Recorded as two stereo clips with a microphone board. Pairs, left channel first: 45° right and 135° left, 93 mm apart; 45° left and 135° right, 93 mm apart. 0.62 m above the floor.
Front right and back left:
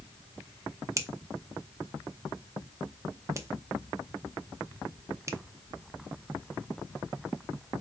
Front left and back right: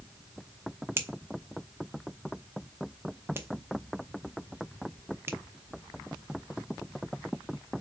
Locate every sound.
1.0 s a finger snap: 175° left, 0.6 m